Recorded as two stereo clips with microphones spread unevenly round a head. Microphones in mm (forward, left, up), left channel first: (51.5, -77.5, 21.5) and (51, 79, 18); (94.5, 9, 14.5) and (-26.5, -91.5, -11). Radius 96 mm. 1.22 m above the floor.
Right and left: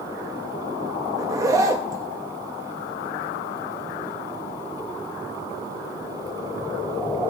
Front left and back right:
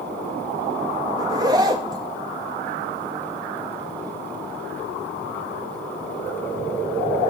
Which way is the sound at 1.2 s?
155° left.